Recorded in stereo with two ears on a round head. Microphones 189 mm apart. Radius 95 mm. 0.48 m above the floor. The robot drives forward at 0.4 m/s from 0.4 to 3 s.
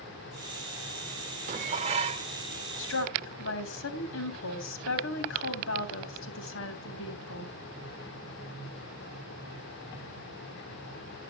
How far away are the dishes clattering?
About 1.0 m.